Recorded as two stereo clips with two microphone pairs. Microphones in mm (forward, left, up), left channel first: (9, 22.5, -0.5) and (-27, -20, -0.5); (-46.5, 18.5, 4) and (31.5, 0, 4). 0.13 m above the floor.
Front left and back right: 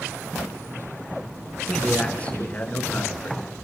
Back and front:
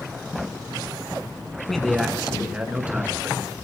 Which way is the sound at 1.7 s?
90° left.